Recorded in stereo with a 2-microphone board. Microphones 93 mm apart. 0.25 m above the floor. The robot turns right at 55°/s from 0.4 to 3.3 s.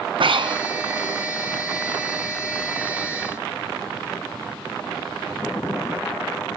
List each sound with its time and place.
0.2 s breathing: 65° right (ahead or behind), 1.2 m; by 0.6 s 55° right (ahead or behind), 1.2 m